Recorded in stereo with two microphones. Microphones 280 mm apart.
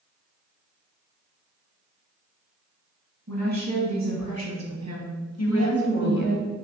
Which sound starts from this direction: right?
A woman speaking, at 3.3 s.